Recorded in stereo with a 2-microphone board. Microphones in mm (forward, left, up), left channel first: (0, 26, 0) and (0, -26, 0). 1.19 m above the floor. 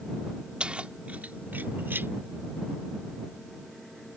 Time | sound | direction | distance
0.6 | keys jangling | 20° right (ahead or behind) | ?